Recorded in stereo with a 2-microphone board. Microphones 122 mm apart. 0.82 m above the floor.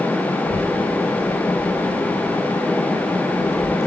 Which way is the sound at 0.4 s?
75° left (ahead or behind).